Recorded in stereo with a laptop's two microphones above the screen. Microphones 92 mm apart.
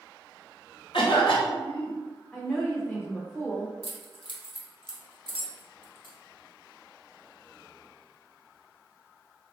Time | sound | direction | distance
0.9 | a cough | 65° left (ahead or behind) | 1.2 m
2.3 | a woman speaking | 10° left (ahead or behind) | 0.5 m
3.8 | keys jangling | 65° left (ahead or behind) | 0.7 m